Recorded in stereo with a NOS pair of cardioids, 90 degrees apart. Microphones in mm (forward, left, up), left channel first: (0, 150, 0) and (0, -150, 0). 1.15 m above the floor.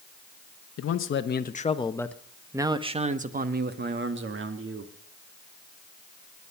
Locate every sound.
0.8 s a man speaking: 50° left, 1.2 m; by 4.9 s 45° right, 2 m